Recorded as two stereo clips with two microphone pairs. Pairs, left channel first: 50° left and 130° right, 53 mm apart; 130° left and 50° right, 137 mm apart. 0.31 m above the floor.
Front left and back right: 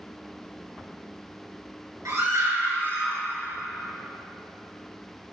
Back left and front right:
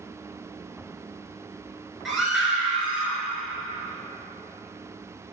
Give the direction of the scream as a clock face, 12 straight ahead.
5 o'clock.